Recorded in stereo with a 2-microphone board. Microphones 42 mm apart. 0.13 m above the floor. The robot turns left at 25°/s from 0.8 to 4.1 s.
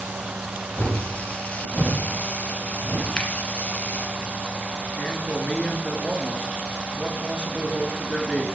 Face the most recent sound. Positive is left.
turn(degrees=30)  # may be behind; listen again after turning